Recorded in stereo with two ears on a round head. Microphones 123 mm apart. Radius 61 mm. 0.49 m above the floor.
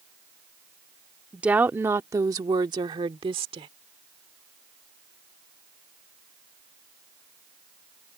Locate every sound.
1.3 s a woman speaking: 10° right (ahead or behind); by 3.7 s 40° right (ahead or behind)